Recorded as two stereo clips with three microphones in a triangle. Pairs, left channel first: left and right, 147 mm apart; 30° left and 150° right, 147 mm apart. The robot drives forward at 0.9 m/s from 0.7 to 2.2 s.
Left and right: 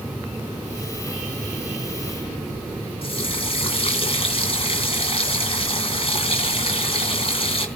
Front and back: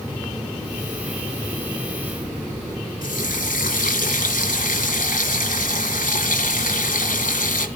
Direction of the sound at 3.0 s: 40° left.